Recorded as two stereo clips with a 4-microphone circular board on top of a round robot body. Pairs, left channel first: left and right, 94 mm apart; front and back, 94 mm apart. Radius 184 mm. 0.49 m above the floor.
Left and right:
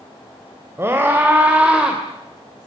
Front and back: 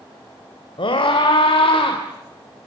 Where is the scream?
25° right, 3.5 m; by 2.0 s 5° right, 3 m.